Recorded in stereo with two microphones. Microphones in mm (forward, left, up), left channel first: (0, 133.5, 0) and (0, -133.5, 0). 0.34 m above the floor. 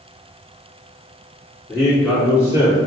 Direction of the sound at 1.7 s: 15° left (ahead or behind).